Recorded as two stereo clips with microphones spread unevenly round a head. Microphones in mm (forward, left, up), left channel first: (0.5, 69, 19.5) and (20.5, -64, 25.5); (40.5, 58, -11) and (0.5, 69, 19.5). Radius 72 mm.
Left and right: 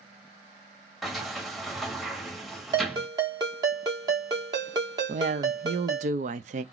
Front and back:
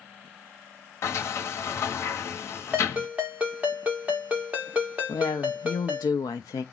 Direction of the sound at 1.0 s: 10° left.